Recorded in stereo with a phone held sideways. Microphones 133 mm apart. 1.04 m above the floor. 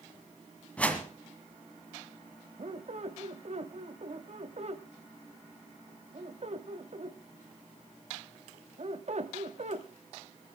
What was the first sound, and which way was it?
A whoosh, 10° left (ahead or behind).